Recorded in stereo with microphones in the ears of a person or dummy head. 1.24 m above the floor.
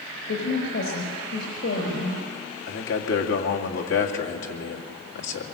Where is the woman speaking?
70° left (ahead or behind), 4.5 m.